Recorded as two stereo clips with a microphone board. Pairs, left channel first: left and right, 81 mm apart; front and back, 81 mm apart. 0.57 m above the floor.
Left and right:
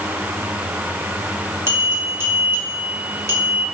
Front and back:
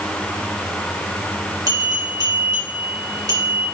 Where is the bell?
145° right, 3 m.